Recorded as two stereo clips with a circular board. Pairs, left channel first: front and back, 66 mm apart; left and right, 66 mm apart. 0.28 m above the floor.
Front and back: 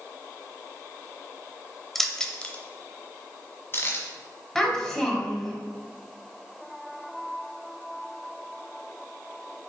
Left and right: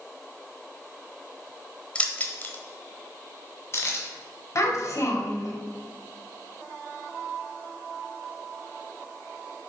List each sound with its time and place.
1.9 s keys jangling: 85° left, 0.6 m; by 4.0 s 50° left, 1.4 m
4.5 s a child speaking: 80° left, 1.5 m